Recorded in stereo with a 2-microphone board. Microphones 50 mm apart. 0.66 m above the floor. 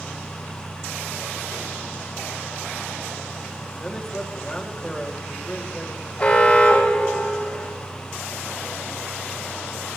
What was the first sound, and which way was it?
A man speaking, 10° left (ahead or behind).